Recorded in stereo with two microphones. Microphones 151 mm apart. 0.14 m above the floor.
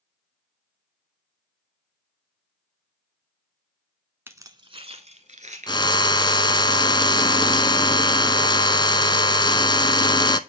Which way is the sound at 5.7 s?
30° left (ahead or behind).